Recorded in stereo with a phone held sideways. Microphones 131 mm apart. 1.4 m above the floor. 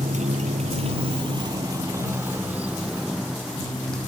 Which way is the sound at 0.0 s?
70° right (ahead or behind).